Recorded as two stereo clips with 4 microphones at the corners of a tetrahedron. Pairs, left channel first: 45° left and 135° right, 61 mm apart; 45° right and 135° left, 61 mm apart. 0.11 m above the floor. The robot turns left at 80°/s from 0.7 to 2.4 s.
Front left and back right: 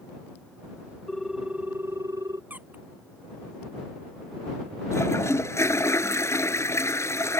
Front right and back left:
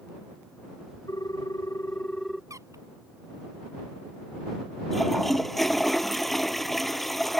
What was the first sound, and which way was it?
A ringtone, 35° right.